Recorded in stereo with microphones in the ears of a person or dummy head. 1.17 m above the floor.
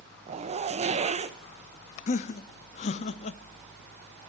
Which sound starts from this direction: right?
A zipper, at 0.3 s.